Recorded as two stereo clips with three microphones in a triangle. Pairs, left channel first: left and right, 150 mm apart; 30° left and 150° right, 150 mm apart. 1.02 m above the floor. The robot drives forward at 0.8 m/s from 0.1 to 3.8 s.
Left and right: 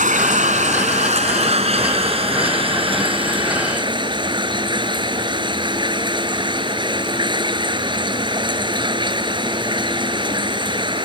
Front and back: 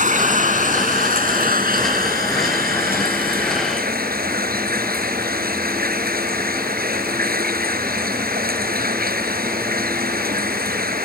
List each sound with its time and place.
0.0 s running water: 120° right; by 11.1 s 150° right